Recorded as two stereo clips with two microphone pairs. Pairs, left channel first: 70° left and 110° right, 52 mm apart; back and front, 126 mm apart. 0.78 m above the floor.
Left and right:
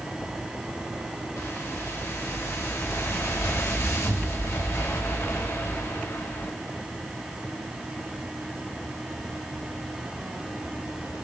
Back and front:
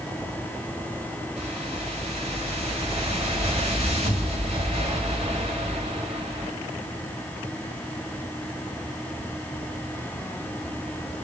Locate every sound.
1.4 s a whoosh: 40° left, 4 m